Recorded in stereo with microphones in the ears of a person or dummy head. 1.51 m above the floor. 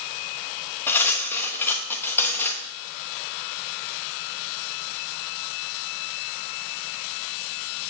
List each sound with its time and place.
0.9 s cutlery clinking: 15° left (ahead or behind), 1.2 m